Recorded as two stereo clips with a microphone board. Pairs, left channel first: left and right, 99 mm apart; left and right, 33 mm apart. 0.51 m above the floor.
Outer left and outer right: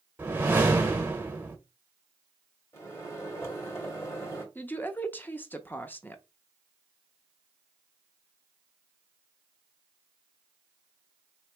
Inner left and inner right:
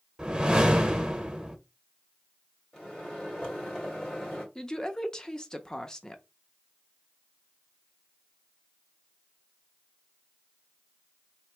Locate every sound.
0.2 s a whoosh: 20° right (ahead or behind), 1.1 m
2.7 s a microwave: 25° left (ahead or behind), 2 m
4.5 s a woman speaking: 20° left (ahead or behind), 0.7 m